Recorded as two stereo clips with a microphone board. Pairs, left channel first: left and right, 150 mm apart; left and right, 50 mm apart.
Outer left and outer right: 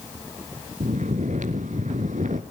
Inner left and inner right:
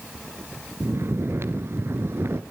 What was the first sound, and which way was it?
Snoring, 65° right (ahead or behind).